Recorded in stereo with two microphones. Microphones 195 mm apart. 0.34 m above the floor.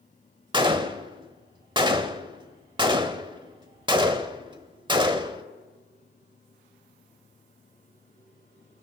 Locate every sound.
0.5 s a gunshot: 25° right (ahead or behind), 0.8 m